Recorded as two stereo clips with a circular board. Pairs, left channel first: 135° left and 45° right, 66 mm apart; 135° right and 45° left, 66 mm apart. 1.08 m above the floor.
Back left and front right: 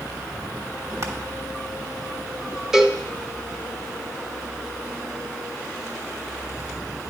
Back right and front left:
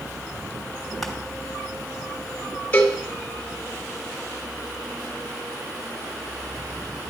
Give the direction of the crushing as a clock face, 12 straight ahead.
2 o'clock.